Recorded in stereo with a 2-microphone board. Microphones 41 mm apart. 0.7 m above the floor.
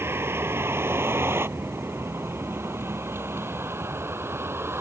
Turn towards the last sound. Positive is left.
turn(degrees=-80)